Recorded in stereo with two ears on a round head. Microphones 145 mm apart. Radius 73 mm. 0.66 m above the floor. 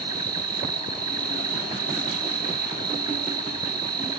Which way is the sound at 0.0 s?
25° right (ahead or behind).